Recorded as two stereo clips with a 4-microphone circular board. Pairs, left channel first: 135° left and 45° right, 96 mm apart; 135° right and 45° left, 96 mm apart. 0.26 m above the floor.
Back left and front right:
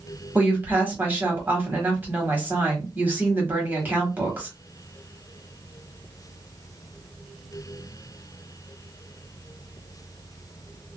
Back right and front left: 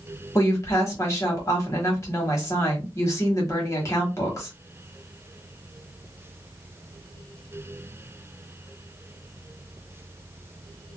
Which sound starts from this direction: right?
A woman speaking, at 0.3 s.